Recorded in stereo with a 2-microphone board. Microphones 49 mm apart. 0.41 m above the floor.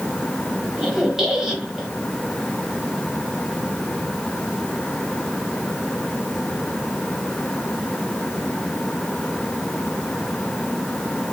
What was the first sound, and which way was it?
A squeak, 10° right (ahead or behind).